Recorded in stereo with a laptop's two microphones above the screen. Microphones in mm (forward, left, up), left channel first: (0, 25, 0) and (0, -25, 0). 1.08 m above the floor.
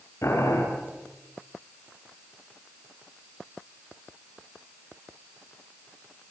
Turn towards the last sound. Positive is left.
turn(degrees=70)  # may be behind; listen again after turning